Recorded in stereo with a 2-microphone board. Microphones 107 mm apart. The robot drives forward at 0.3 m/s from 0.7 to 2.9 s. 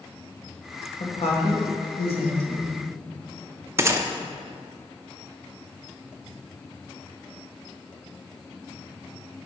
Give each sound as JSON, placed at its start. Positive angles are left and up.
{"t": 1.0, "sound": "a woman speaking", "side_deg": 70, "distance_m": 1.6}
{"t": 3.8, "sound": "a gunshot", "side_deg": -25, "distance_m": 0.6}